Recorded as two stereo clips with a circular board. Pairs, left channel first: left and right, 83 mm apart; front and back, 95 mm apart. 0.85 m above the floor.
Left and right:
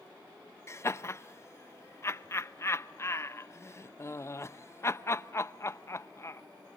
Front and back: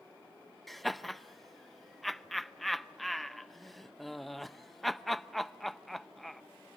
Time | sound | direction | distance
0.7 | laughter | 90° left | 0.6 m